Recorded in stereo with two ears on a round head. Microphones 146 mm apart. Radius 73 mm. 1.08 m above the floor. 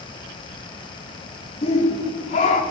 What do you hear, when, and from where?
1.6 s a shout: 40° left (ahead or behind), 2.5 m; by 2.6 s 45° left (ahead or behind), 3.5 m